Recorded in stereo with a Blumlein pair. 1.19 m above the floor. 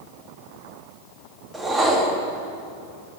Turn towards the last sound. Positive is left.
turn(degrees=-10)